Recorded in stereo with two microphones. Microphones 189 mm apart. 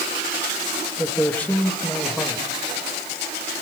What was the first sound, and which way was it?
A man speaking, 10° left (ahead or behind).